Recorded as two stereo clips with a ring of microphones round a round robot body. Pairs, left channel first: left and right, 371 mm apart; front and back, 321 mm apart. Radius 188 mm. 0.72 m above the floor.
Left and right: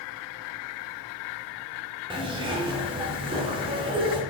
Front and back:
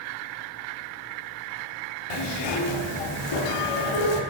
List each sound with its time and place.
2.1 s a zipper: 10° right, 0.8 m